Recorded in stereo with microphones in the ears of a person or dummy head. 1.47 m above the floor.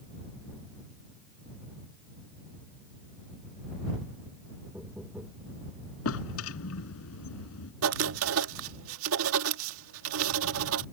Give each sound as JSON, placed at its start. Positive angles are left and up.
{"t": 4.7, "sound": "knocking", "side_deg": -5}
{"t": 6.0, "sound": "a drawer", "side_deg": 80}
{"t": 7.8, "sound": "writing", "side_deg": -80}